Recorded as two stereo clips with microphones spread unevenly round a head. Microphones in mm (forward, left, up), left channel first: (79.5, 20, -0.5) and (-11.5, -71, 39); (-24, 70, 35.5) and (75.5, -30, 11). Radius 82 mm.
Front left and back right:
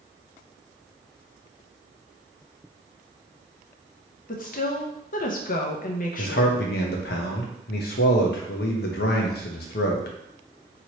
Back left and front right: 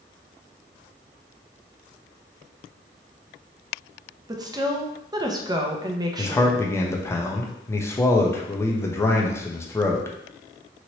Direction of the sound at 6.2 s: 65° left.